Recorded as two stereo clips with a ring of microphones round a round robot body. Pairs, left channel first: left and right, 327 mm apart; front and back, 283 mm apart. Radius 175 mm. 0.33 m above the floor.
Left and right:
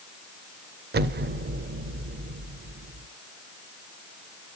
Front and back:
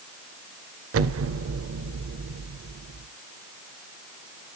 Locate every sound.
0.9 s an explosion: 150° right, 0.5 m